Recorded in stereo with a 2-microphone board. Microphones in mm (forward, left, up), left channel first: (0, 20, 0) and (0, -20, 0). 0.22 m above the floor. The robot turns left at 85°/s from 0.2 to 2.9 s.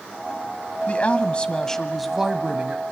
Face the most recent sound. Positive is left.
turn(degrees=-80)